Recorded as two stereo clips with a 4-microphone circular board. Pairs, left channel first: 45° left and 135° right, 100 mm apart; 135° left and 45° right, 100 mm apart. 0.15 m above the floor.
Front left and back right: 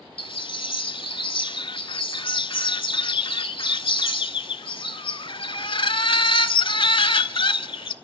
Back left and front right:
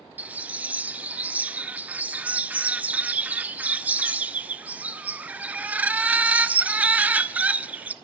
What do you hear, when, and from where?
0.2 s a bird: 25° left, 0.5 m